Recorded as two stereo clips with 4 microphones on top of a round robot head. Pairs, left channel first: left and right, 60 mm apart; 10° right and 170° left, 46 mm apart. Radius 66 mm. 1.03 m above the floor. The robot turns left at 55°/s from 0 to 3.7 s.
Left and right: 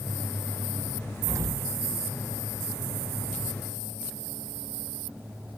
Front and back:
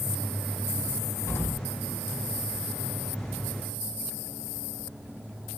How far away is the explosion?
About 1.3 m.